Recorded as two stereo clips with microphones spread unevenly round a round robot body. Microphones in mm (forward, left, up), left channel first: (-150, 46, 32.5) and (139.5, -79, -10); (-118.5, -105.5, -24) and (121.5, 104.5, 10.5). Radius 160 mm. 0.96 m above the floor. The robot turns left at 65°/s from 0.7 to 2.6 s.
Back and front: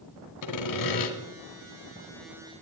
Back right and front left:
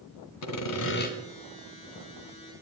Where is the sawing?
Straight behind, 2 m; by 1.1 s 155° left, 2 m.